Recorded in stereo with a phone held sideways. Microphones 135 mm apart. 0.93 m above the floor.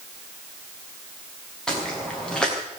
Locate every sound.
1.7 s footsteps: 5° left (ahead or behind), 7.5 m